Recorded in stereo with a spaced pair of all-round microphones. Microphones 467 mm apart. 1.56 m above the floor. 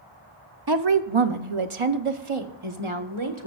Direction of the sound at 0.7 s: 50° right (ahead or behind).